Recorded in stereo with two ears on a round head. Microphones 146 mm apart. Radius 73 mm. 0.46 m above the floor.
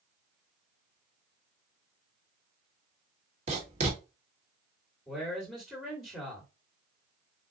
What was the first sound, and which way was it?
Writing, 45° right (ahead or behind).